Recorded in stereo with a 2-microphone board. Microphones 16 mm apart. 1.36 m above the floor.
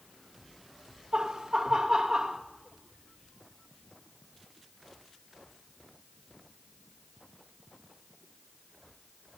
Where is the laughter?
50° right (ahead or behind), 1.6 m.